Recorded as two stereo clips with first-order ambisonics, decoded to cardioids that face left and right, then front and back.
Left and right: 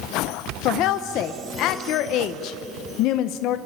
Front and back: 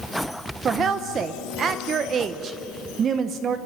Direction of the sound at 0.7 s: 120° left.